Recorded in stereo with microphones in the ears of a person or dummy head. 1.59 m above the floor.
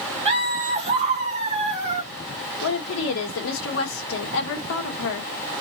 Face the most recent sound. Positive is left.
turn(degrees=75)  # may be behind; listen again after turning